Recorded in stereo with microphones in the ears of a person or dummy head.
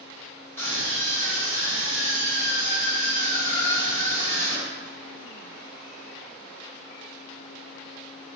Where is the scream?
15° left (ahead or behind), 3 m.